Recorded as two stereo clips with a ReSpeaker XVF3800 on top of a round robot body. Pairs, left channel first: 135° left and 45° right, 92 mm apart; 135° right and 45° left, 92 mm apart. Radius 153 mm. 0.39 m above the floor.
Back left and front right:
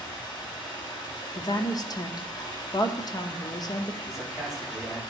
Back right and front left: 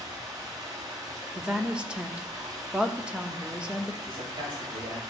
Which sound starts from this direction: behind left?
A woman speaking, at 1.3 s.